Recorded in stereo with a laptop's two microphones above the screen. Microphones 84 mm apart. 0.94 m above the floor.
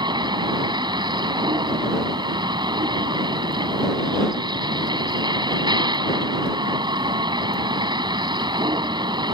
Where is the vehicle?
65° right (ahead or behind).